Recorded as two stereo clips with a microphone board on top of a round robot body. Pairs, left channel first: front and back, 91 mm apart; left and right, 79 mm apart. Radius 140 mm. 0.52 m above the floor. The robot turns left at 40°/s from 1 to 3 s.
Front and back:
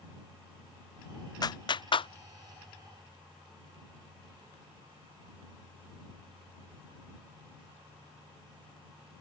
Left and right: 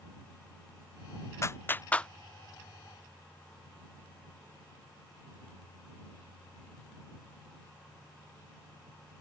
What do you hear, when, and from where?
1.4 s a clap: 40° left; by 2.1 s 10° left